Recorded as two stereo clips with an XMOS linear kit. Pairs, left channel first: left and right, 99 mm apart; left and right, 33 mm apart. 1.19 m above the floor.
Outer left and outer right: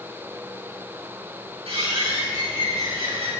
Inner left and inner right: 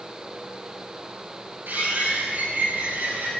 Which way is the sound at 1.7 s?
75° right (ahead or behind).